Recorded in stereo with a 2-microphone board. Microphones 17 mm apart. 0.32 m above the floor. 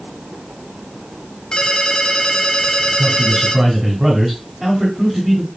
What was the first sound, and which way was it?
A ringtone, 60° left (ahead or behind).